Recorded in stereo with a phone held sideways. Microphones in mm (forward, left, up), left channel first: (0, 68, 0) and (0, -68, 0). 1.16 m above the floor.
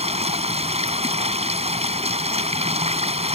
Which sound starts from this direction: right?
Running water, at 0.0 s.